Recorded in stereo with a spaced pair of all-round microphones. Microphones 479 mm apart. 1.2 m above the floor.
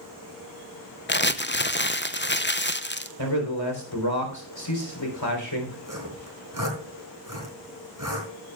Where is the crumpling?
25° left (ahead or behind), 0.5 m.